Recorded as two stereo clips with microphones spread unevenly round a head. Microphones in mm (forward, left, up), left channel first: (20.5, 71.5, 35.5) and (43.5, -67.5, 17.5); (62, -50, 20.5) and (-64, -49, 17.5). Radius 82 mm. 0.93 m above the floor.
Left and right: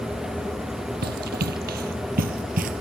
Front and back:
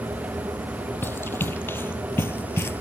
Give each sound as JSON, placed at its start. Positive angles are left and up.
{"t": 1.0, "sound": "running footsteps", "azimuth_deg": -75}